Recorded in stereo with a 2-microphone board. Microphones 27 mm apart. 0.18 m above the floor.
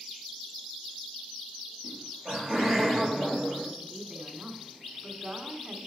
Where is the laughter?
5° right (ahead or behind), 4.5 m.